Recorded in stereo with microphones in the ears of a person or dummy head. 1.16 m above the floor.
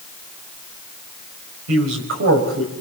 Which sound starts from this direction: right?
A man speaking, at 1.7 s.